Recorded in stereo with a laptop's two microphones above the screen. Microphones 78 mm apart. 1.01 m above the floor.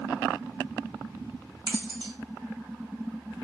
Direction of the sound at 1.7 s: 65° right (ahead or behind).